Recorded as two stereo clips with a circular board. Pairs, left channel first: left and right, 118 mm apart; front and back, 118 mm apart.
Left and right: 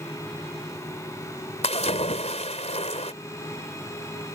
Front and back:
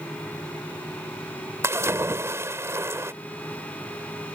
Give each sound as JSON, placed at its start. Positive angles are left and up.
{"t": 1.6, "sound": "a splash", "azimuth_deg": 110}